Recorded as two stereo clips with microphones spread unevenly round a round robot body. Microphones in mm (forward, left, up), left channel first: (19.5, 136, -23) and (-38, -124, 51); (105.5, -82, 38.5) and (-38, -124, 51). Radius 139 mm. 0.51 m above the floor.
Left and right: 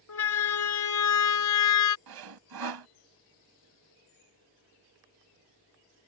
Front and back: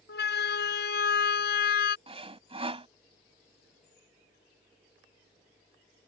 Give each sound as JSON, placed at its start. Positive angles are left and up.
{"t": 0.1, "sound": "a siren", "azimuth_deg": 40}
{"t": 2.1, "sound": "sawing", "azimuth_deg": -110}